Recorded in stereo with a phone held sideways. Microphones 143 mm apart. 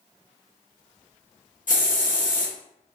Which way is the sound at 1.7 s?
65° left (ahead or behind).